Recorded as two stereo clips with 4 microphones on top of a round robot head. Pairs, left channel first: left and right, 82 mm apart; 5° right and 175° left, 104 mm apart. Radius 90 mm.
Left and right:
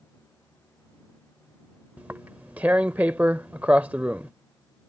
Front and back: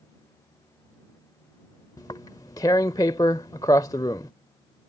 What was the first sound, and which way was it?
Tearing paper, 25° right.